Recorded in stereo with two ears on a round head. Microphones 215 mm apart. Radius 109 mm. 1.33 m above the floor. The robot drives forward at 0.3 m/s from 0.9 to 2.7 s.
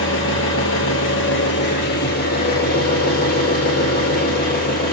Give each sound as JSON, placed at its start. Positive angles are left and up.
{"t": 0.0, "sound": "an engine running", "side_deg": 55, "distance_m": 1.3}